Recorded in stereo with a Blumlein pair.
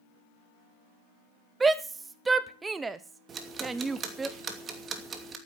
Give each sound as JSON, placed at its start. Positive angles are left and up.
{"t": 1.6, "sound": "a shout", "azimuth_deg": -15, "distance_m": 0.8}
{"t": 3.3, "sound": "ticking", "azimuth_deg": -25, "distance_m": 2.5}